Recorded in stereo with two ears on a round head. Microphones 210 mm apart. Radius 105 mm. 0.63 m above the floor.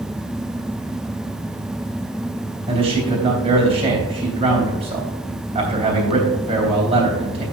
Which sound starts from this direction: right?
A man speaking, at 2.7 s.